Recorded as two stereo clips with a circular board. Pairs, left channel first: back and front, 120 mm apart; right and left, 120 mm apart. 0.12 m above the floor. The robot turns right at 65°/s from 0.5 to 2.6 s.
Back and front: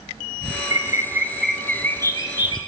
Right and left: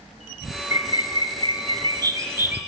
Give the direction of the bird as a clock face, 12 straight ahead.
11 o'clock.